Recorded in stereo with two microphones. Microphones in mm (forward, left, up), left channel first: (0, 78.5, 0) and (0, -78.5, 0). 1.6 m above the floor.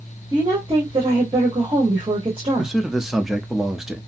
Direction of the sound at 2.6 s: 5° right (ahead or behind).